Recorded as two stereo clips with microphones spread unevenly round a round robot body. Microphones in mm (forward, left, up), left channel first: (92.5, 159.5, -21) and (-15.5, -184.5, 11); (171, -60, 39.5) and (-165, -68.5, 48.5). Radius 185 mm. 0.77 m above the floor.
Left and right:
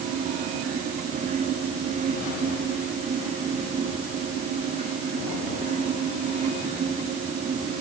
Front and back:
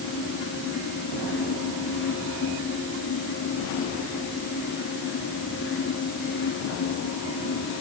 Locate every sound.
Only background noise.